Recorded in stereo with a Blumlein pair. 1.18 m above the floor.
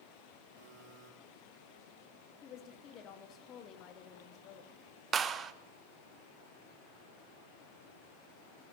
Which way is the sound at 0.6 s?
35° right.